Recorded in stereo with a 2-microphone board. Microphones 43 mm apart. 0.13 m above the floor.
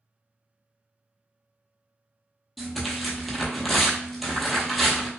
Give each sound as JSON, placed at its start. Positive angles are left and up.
{"t": 2.6, "sound": "tearing paper", "side_deg": 0, "distance_m": 0.8}